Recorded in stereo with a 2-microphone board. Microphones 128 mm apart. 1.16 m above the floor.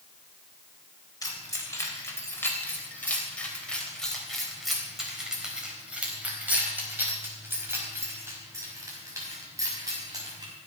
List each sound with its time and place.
1.2 s keys jangling: 30° left (ahead or behind), 3.5 m; by 10.5 s 30° right (ahead or behind), 6 m